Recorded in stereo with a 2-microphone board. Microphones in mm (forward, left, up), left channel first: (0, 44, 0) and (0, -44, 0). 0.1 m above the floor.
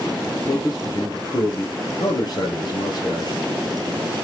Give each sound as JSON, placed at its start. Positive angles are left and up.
{"t": 0.5, "sound": "a man speaking", "side_deg": 50, "distance_m": 2.0}